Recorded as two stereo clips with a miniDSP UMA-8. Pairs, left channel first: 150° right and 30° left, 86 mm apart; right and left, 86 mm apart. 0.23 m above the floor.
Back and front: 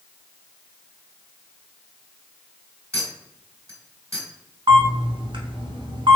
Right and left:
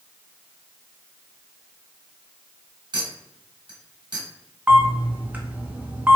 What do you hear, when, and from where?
2.9 s a clink: 80° left, 1.8 m
4.7 s a camera shutter: 20° left, 0.7 m